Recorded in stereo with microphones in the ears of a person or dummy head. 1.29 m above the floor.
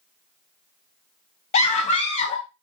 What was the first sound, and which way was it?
A scream, 30° left (ahead or behind).